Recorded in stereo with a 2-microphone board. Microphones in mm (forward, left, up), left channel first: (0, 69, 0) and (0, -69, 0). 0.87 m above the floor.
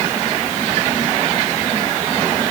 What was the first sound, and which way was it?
Only background noise.